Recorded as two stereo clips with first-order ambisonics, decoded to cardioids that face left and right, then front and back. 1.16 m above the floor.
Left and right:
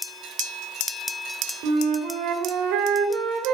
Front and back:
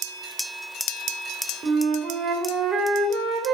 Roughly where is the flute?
Behind right.